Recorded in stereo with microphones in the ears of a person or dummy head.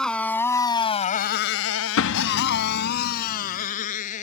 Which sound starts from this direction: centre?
A motorcycle, at 0.0 s.